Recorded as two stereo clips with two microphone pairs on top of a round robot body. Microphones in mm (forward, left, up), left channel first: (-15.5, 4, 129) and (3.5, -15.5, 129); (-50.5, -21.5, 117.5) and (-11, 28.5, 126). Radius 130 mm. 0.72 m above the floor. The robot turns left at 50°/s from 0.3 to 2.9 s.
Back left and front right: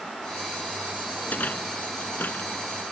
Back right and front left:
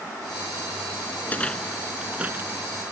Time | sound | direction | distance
1.2 | a rattle | 170° left | ?